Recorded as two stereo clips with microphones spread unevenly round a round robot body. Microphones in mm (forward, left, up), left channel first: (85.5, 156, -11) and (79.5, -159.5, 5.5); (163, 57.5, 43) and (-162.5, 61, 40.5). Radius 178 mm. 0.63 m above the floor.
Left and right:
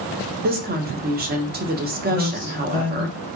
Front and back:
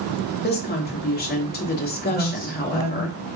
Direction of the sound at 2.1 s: 90° right.